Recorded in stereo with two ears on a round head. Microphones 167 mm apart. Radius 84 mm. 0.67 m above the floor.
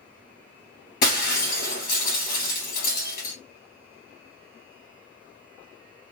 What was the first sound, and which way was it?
Breaking glass, 50° left (ahead or behind).